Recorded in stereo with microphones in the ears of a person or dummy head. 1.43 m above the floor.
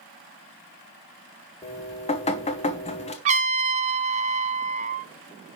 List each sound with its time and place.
1.6 s dripping: 25° left (ahead or behind), 1.1 m
3.2 s a trumpet: 40° right (ahead or behind), 0.6 m